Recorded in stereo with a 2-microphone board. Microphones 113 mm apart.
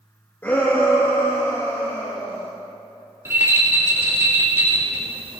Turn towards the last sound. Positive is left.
turn(degrees=-20)  # may be behind; listen again after turning